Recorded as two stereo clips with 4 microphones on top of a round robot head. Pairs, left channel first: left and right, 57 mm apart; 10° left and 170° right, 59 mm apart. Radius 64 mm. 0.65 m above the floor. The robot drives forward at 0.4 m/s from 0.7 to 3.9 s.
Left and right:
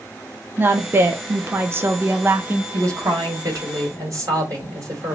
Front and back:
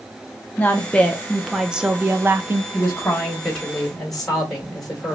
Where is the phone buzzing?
No phone buzzing in this recording.